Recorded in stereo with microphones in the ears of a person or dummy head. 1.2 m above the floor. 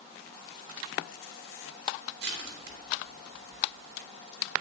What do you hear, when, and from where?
2.2 s crushing: 70° right (ahead or behind), 2.5 m